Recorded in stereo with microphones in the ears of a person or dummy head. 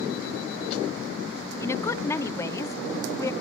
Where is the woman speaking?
15° left (ahead or behind), 0.6 m.